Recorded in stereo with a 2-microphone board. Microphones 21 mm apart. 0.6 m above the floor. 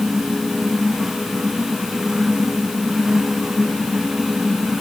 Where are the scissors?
No scissors in this recording.